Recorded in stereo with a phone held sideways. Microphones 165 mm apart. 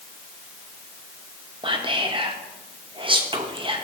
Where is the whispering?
30° right (ahead or behind), 0.8 m.